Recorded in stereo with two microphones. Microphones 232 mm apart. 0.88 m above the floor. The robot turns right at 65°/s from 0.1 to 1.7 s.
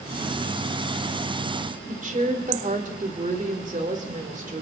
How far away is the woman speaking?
About 3 m.